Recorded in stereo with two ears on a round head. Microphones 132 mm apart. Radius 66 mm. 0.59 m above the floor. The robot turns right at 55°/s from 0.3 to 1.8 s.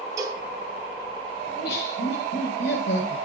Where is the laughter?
75° left (ahead or behind), 10 m; by 3.2 s 85° left, 10 m.